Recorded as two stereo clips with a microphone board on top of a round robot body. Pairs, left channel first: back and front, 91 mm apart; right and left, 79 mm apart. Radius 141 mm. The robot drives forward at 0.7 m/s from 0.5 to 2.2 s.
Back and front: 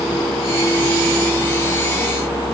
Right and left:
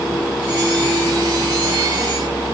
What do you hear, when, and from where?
Only background noise.